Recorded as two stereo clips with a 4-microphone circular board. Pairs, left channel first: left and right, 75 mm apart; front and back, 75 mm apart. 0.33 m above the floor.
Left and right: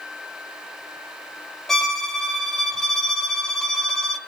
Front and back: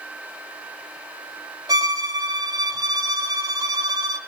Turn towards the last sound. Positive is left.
turn(degrees=175)